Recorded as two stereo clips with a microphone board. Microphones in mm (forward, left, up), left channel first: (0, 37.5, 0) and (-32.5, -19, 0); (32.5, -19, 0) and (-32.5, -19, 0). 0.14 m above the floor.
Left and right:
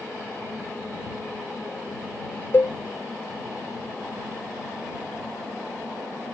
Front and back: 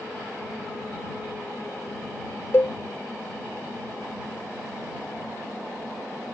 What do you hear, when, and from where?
2.5 s a cowbell: 25° left